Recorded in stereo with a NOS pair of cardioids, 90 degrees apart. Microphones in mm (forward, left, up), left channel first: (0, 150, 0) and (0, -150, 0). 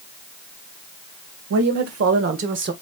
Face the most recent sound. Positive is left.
turn(degrees=-40)